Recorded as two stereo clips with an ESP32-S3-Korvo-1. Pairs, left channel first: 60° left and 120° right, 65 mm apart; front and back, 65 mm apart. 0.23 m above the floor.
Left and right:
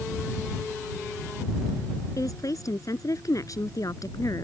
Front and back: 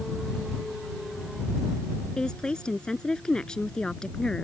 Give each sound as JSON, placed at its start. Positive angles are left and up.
{"t": 2.2, "sound": "a woman speaking", "azimuth_deg": 75}